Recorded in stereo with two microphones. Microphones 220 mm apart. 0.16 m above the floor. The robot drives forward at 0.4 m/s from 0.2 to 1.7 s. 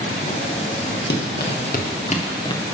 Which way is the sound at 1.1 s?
50° left (ahead or behind).